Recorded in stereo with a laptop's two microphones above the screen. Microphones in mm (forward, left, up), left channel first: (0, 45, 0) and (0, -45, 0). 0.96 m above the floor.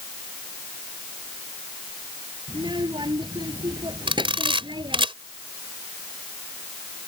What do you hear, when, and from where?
2.5 s a child speaking: 60° right (ahead or behind)
4.1 s a camera shutter: 80° right